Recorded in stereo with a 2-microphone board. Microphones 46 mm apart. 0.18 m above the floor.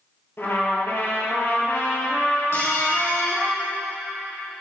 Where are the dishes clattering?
60° left (ahead or behind), 4 m.